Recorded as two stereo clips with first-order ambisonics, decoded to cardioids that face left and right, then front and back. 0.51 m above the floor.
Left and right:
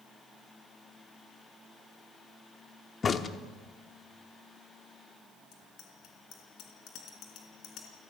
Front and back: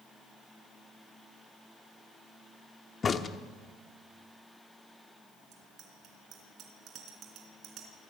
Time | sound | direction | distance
3.0 | a crack | 45° left | 0.9 m
5.5 | a bicycle bell | 130° left | 4 m